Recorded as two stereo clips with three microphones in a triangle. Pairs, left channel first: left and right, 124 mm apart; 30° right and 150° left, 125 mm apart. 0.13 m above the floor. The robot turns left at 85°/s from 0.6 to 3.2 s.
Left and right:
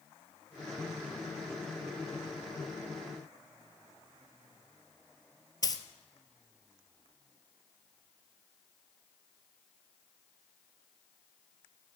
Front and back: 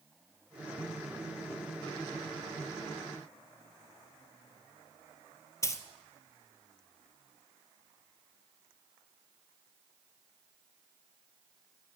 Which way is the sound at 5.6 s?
35° left.